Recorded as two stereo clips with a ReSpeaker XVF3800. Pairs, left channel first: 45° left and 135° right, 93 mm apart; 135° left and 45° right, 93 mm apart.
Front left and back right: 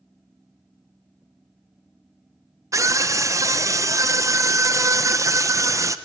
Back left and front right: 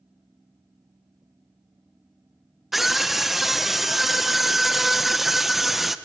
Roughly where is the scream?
Behind right.